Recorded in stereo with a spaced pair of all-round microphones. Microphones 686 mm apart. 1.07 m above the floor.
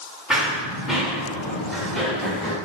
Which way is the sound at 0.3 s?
Centre (ahead or behind).